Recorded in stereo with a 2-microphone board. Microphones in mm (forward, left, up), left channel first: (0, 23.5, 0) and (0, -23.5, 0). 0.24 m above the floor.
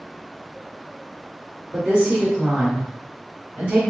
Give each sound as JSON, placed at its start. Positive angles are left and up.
{"t": 1.7, "sound": "a woman speaking", "side_deg": -35, "distance_m": 2.0}